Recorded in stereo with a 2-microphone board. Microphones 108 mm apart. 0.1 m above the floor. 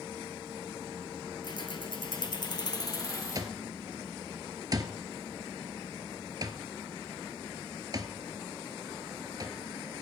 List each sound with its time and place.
1.4 s keys jangling: 45° left (ahead or behind), 1.6 m; by 3.5 s 30° left (ahead or behind), 3 m
3.4 s an alarm clock: 40° right (ahead or behind), 1.3 m